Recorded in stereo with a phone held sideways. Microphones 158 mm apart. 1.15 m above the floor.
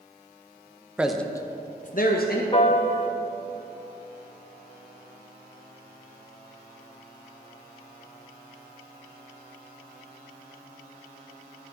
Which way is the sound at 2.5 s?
35° left (ahead or behind).